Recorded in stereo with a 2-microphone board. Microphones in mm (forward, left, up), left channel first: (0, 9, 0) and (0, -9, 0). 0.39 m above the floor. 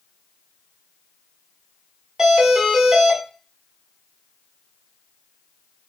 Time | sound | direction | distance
2.2 | a doorbell | 25° right (ahead or behind) | 1.8 m